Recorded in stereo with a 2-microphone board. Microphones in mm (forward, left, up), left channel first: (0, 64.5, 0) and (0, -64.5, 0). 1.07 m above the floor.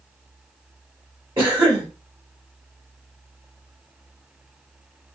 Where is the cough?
35° right (ahead or behind), 1.4 m.